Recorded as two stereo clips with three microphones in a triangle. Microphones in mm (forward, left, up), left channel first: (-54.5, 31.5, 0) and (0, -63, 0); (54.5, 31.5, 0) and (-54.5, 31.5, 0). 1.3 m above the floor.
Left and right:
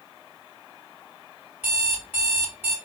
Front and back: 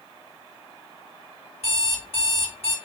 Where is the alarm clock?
10° left, 2 m.